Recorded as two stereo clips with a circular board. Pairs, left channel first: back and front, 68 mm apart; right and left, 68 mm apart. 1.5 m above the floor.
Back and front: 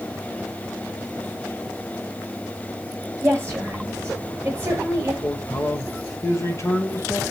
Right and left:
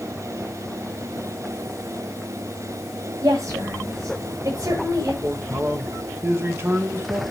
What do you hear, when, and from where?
3.2 s a woman speaking: 55° left, 7 m
5.2 s a man speaking: 135° left, 1.9 m